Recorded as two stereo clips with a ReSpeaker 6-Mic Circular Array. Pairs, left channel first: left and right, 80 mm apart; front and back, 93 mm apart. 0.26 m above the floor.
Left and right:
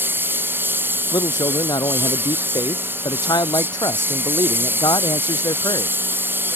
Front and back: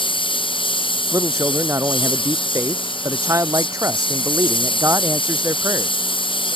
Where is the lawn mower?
25° right.